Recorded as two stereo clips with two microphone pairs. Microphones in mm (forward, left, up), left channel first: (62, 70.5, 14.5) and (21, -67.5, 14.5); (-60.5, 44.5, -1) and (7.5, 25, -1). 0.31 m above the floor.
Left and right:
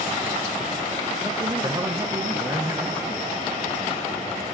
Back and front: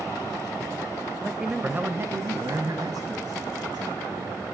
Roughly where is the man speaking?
Behind right.